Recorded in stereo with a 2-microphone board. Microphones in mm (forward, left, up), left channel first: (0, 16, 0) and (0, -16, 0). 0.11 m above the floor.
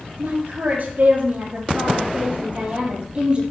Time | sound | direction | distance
0.2 | a woman speaking | 60° right (ahead or behind) | 3 m